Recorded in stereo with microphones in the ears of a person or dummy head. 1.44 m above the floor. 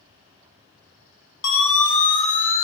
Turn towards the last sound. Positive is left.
turn(degrees=40)  # may be behind; listen again after turning